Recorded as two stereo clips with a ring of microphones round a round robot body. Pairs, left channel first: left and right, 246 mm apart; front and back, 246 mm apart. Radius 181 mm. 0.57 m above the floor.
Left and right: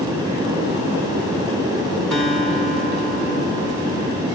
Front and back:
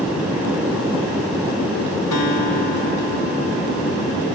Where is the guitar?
5° left, 3.5 m.